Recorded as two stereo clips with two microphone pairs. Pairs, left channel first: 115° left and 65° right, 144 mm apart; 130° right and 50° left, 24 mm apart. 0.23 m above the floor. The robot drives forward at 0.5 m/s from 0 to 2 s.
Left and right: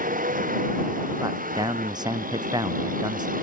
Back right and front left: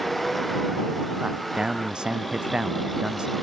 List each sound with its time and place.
0.0 s a vehicle: 45° right
1.2 s a man speaking: straight ahead